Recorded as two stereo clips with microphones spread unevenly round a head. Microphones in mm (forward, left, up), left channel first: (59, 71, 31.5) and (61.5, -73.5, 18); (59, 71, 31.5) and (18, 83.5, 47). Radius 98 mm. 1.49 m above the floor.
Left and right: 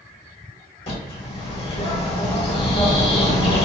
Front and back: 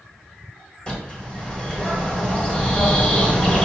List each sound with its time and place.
0.9 s a bird: 60° left, 1.9 m